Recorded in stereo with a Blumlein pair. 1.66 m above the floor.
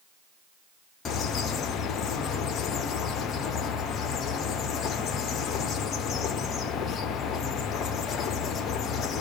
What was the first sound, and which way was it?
A bird, 25° left.